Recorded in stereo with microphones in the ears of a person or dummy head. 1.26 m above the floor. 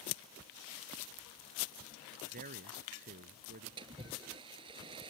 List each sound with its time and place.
2.3 s a man speaking: 45° right (ahead or behind)
3.8 s a splash: 25° right (ahead or behind)